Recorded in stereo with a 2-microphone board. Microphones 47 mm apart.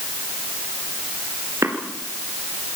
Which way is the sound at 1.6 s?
75° right (ahead or behind).